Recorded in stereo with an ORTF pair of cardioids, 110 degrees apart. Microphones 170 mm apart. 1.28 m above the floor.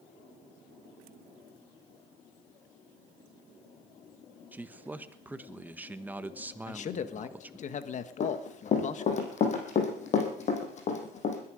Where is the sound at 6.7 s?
45° left, 1.4 m.